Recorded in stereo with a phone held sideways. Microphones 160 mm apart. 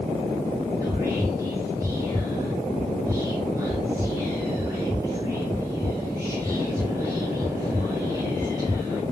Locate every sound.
0.8 s whispering: 20° right (ahead or behind), 5 m